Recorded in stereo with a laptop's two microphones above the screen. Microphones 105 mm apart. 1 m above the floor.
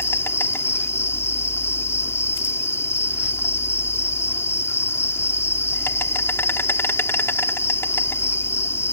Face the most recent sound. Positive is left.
turn(degrees=25)  # may be behind; listen again after turning